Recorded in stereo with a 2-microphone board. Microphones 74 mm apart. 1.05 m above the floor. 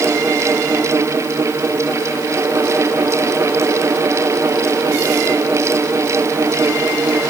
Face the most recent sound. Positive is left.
No sound to turn to.